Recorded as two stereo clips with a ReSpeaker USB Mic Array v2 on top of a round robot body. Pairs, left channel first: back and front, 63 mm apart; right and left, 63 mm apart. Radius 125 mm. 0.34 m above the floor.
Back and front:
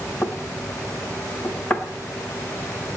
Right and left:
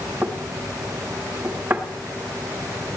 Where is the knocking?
130° left, 1.4 m.